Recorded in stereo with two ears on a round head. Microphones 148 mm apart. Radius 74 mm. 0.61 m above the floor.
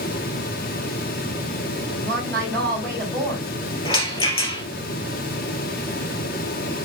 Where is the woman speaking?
5° left (ahead or behind), 4.5 m.